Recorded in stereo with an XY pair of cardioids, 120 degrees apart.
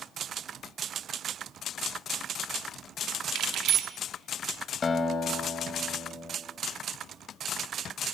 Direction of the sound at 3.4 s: 65° right.